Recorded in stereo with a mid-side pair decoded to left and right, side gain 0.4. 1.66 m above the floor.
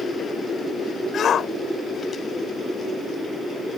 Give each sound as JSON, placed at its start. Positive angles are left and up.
{"t": 1.1, "sound": "a shout", "azimuth_deg": 65}